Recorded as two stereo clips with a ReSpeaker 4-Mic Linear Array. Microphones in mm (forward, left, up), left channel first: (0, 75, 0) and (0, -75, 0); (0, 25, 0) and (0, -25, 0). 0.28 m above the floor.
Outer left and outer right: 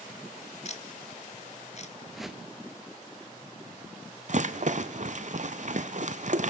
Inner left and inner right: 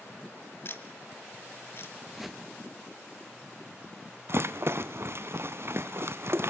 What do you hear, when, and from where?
0.7 s ticking: 50° left (ahead or behind), 1.1 m
2.1 s a whoosh: centre (ahead or behind), 1.0 m
4.3 s a rattle: 55° right (ahead or behind), 0.8 m